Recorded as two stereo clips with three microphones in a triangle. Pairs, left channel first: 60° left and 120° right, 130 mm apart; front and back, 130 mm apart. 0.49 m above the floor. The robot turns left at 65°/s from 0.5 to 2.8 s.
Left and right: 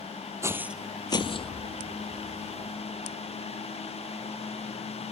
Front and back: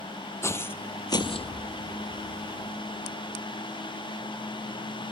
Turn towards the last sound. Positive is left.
turn(degrees=-65)